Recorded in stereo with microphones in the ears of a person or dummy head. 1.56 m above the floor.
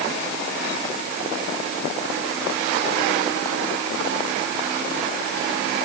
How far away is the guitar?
I don't hear a guitar.